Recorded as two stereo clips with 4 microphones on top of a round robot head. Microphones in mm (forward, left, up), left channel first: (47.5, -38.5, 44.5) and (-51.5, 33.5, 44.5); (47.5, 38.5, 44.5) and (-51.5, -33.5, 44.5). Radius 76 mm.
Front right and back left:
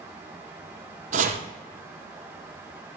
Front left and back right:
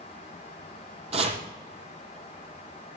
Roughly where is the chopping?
Behind.